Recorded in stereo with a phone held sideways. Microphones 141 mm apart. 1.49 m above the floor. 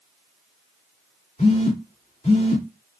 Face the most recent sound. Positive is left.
turn(degrees=55)  # may be behind; listen again after turning